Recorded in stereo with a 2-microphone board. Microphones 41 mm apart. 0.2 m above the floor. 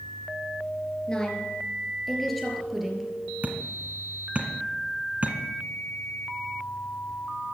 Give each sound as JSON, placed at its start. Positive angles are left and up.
{"t": 1.1, "sound": "a woman speaking", "side_deg": 20, "distance_m": 3.0}
{"t": 3.4, "sound": "hammering", "side_deg": -35, "distance_m": 1.8}